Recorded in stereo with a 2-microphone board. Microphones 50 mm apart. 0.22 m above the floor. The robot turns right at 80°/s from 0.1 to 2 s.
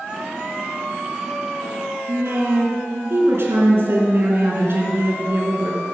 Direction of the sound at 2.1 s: 55° right (ahead or behind).